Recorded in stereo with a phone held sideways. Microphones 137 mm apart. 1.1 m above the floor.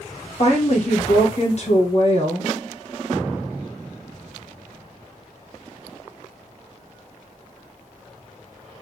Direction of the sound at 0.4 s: 50° left (ahead or behind).